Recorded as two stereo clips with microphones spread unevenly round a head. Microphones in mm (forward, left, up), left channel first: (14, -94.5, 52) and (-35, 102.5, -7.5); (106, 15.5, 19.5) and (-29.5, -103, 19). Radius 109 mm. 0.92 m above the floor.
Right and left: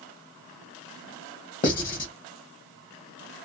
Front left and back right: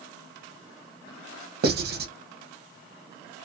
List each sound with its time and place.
1.6 s writing: 135° right, 0.9 m